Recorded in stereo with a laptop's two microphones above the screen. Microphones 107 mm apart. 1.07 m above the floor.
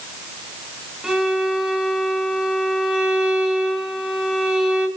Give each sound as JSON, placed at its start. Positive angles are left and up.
{"t": 1.0, "sound": "a violin", "side_deg": -5, "distance_m": 1.0}